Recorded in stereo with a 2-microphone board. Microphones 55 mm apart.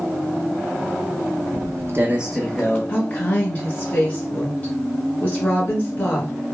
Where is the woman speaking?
25° left (ahead or behind), 1.1 m.